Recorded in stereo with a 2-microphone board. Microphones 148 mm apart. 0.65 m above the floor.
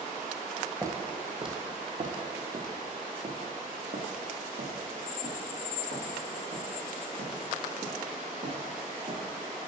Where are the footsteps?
20° right (ahead or behind), 1.2 m; by 9.3 s 65° right (ahead or behind), 5.5 m.